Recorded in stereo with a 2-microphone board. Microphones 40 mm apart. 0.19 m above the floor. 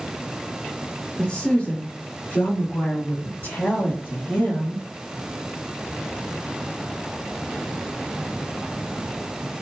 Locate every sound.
1.2 s a woman speaking: 25° left (ahead or behind), 1.6 m; by 4.8 s 60° left (ahead or behind), 3 m